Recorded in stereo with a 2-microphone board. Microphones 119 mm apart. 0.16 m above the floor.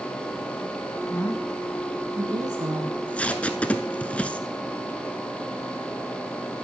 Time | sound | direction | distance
1.1 | a woman speaking | 25° left (ahead or behind) | 1.1 m
2.9 | tape being pulled | 10° left (ahead or behind) | 0.7 m